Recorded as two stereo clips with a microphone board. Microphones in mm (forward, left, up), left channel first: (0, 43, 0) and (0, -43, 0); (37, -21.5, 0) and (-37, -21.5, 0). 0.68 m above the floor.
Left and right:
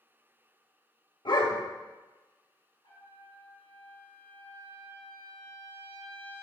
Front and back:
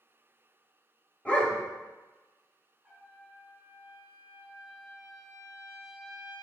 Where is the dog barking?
70° left, 0.9 m.